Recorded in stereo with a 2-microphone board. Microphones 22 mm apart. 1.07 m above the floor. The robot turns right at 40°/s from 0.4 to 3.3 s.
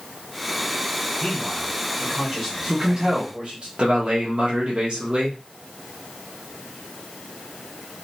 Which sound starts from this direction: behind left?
A man speaking, at 1.2 s.